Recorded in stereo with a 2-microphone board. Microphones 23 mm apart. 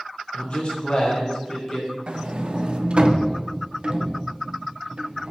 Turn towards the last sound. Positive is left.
turn(degrees=-50)  # may be behind; listen again after turning